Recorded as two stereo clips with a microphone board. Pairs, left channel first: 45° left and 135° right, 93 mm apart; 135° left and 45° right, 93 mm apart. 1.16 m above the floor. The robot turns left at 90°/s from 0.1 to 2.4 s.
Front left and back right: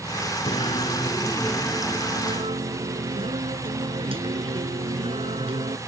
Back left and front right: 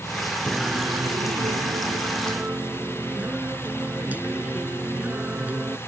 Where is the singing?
55° left; by 5.8 s 120° right.